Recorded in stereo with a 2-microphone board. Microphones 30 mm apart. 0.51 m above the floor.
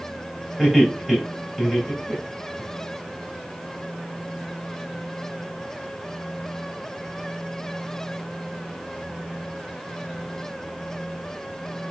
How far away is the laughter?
About 2.5 m.